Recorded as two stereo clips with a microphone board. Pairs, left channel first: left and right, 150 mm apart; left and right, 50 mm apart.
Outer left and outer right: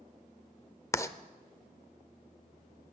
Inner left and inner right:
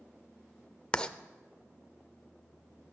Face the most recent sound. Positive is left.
turn(degrees=20)  # may be behind; listen again after turning